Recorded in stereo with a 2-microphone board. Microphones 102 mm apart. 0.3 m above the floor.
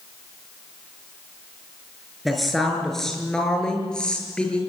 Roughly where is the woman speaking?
Centre.